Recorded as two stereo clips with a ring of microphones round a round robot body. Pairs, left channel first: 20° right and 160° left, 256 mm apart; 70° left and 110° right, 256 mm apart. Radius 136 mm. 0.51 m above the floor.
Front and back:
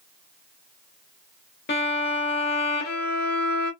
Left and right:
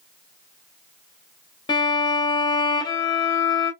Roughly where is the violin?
Ahead.